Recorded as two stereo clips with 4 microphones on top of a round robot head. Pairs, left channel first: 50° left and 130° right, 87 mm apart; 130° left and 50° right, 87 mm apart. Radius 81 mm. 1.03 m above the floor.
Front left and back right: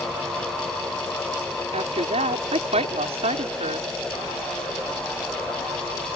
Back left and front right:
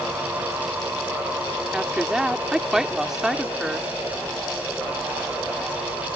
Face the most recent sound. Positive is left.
turn(degrees=-135)